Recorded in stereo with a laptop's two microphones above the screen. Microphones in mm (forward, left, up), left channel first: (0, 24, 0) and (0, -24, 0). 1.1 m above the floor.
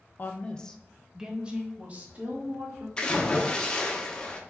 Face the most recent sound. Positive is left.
turn(degrees=20)  # may be behind; listen again after turning